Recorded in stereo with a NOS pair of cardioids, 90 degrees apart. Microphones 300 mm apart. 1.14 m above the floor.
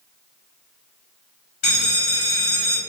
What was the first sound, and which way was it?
A bell, 60° left.